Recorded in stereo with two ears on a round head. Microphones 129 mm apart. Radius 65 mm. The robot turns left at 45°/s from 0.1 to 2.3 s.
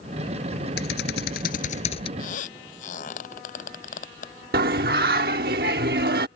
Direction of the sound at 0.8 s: 95° left.